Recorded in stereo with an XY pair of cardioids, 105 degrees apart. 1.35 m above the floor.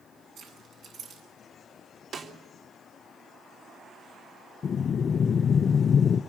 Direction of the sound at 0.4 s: 65° right.